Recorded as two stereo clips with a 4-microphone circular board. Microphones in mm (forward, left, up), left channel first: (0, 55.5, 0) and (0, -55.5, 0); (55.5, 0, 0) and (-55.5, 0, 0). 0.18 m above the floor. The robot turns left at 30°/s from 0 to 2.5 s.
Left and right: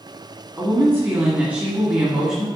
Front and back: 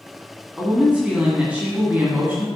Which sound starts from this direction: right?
A woman speaking, at 0.6 s.